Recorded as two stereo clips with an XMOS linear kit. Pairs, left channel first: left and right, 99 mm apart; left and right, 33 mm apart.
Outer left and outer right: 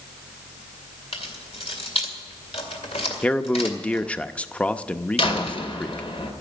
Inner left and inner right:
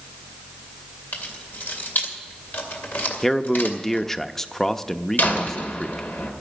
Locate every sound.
1.1 s keys jangling: 85° left, 2.5 m
3.2 s a man speaking: 10° left (ahead or behind), 0.6 m
5.2 s a door slam: 70° left (ahead or behind), 2 m